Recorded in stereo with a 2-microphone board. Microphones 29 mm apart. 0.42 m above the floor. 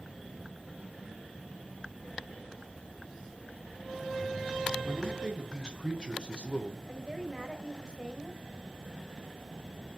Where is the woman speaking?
25° right (ahead or behind), 2 m.